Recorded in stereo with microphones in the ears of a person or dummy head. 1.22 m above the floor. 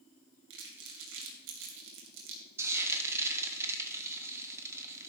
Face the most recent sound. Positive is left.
turn(degrees=-15)  # may be behind; listen again after turning